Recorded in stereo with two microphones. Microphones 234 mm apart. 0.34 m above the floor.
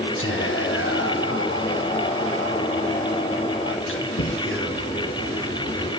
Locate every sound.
0.2 s whispering: 55° left (ahead or behind), 3 m